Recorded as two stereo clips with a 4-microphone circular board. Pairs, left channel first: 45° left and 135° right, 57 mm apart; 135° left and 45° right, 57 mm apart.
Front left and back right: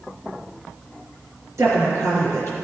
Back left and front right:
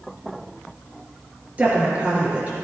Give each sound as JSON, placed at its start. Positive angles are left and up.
{"t": 1.6, "sound": "a woman speaking", "azimuth_deg": -110, "distance_m": 4.0}